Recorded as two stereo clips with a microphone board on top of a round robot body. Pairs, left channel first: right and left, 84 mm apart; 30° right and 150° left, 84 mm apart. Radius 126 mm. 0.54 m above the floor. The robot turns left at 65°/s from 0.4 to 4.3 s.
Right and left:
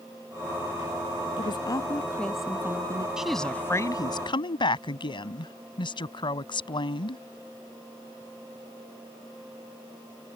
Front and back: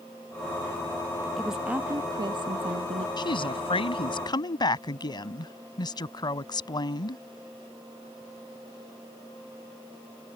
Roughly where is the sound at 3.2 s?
Ahead.